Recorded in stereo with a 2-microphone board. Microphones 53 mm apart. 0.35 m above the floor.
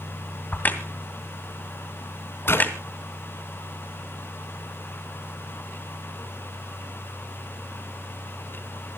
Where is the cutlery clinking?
I don't hear cutlery clinking.